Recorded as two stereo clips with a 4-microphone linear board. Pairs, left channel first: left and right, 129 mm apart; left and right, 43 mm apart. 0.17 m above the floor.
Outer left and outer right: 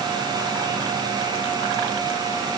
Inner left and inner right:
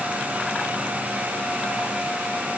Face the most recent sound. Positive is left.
No sound to turn to.